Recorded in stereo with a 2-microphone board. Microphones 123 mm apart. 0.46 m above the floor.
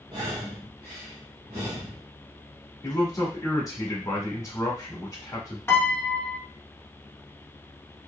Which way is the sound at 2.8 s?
25° left (ahead or behind).